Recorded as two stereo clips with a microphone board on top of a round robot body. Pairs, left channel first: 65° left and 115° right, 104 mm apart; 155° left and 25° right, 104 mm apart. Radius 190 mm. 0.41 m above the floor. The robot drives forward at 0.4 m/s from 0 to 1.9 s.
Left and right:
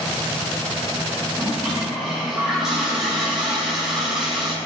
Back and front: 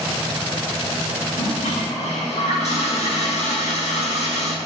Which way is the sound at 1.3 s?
165° left.